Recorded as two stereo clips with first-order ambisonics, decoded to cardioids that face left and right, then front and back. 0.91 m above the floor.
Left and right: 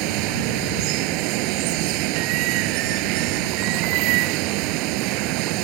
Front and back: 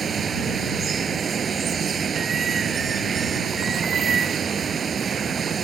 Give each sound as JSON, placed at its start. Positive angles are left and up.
{"t": 0.0, "sound": "running water", "azimuth_deg": -110}